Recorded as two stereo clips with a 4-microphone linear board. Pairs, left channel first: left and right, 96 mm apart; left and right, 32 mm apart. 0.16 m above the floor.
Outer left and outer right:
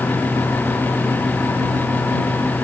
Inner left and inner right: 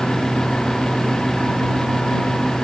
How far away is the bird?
No bird in this recording.